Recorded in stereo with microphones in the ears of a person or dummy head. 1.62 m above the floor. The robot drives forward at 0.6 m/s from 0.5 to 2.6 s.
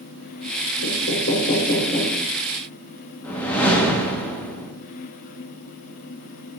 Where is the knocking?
75° left (ahead or behind), 0.8 m; by 2.2 s 40° left (ahead or behind), 1.3 m.